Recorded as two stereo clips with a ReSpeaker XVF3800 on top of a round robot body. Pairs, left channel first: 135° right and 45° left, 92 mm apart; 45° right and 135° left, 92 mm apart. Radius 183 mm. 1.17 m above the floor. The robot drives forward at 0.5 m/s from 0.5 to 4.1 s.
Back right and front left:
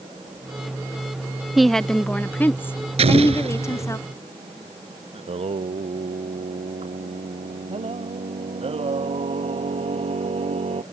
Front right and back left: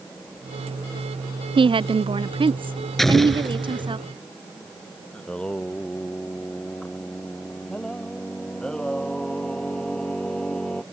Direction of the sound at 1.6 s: 130° left.